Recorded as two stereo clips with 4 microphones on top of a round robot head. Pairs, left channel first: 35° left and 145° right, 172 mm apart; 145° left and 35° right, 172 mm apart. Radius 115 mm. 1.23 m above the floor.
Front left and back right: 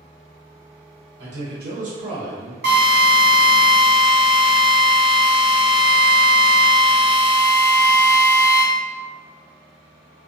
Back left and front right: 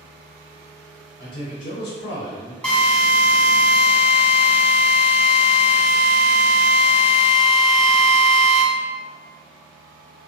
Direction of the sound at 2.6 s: 135° right.